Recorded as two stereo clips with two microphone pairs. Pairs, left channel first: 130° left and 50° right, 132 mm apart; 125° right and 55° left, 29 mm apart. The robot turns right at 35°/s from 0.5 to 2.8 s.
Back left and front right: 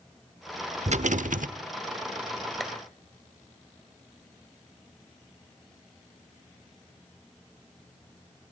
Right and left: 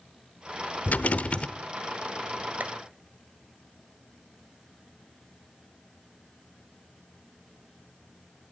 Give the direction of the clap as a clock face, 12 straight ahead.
11 o'clock.